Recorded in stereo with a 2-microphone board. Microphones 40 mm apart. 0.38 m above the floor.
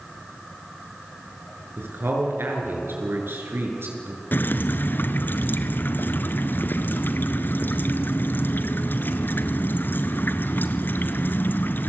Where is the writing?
I don't hear writing.